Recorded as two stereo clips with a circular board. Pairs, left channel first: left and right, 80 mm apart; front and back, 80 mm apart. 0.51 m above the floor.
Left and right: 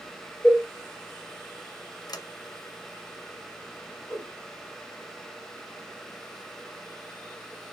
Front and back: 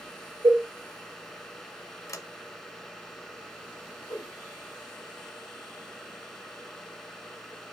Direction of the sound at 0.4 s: 170° left.